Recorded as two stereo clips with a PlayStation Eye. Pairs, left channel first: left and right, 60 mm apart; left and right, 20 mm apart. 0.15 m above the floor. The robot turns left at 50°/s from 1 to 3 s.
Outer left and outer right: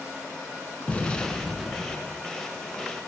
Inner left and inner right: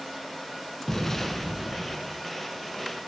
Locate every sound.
0.9 s an explosion: 30° left, 0.9 m; by 2.2 s 35° right, 0.9 m